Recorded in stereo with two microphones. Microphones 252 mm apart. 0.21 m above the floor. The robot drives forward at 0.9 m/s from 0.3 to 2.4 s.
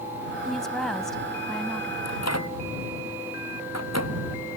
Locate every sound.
0.5 s a woman speaking: centre (ahead or behind)
2.0 s a microwave: 85° left